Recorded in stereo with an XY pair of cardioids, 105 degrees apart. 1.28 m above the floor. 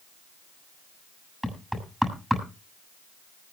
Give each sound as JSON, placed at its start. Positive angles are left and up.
{"t": 1.4, "sound": "knocking", "azimuth_deg": 0, "distance_m": 7.5}